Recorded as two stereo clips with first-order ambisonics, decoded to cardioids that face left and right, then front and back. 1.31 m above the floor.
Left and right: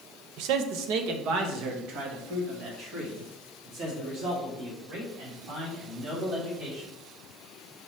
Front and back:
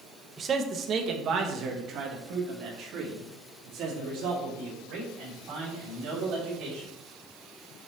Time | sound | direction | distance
0.4 | a man speaking | 110° right | 0.7 m